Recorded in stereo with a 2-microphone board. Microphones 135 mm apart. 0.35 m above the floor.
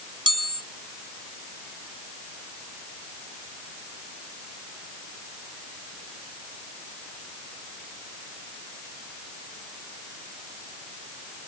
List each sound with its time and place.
0.3 s a chime: 40° right (ahead or behind)